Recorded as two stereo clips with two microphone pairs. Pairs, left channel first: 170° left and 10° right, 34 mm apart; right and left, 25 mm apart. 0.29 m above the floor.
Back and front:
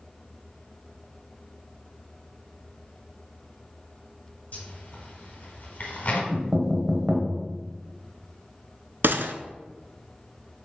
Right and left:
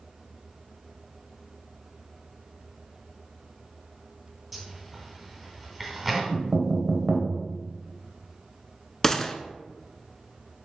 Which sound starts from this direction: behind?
A zipper, at 4.5 s.